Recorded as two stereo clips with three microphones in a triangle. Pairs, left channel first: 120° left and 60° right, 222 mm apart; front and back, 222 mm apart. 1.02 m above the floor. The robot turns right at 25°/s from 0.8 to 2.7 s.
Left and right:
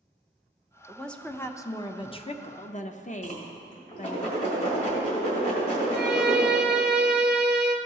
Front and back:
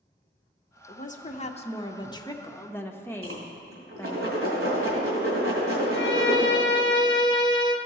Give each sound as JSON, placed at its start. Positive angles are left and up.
{"t": 0.9, "sound": "a woman speaking", "azimuth_deg": 30, "distance_m": 0.5}
{"t": 3.2, "sound": "a whoosh", "azimuth_deg": 175, "distance_m": 2.5}
{"t": 5.9, "sound": "a violin", "azimuth_deg": -25, "distance_m": 0.5}